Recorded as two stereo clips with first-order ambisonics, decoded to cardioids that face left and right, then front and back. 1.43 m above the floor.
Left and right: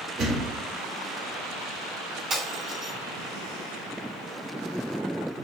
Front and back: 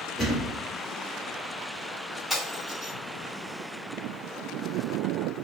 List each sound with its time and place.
0.2 s a thud: 70° right, 1.0 m
2.3 s breaking glass: 65° right, 1.1 m